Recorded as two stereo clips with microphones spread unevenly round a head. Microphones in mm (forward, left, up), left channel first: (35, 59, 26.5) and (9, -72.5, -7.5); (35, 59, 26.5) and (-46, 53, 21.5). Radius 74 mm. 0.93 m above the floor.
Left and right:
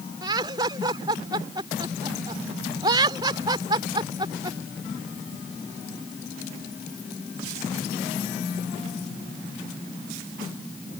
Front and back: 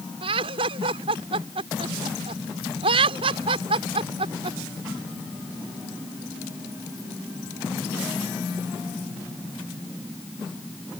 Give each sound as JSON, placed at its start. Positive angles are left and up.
{"t": 0.2, "sound": "laughter", "azimuth_deg": -165}